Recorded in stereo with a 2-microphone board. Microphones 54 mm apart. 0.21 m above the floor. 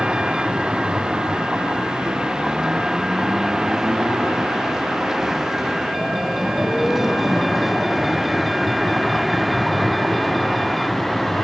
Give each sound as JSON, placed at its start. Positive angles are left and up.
{"t": 0.0, "sound": "a vehicle", "side_deg": -15}